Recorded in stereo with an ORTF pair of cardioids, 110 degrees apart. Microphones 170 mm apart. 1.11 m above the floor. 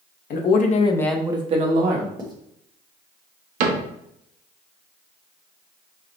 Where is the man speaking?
65° left, 1.1 m; by 2.1 s 55° right, 1.4 m.